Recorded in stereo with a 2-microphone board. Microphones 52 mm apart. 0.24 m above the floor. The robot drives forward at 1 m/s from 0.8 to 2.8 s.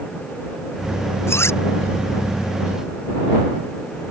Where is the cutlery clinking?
55° left (ahead or behind).